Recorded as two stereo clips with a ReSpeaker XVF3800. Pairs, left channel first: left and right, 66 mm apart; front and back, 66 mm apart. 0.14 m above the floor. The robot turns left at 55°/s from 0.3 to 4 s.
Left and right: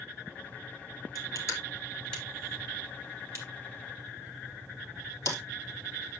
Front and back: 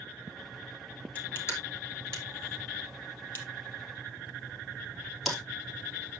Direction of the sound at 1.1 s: 70° left.